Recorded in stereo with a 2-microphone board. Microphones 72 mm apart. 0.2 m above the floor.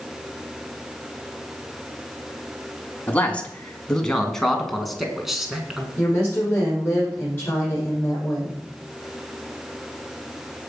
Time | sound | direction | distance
3.1 | a man speaking | 20° left (ahead or behind) | 2 m
6.0 | a woman speaking | 30° left (ahead or behind) | 9 m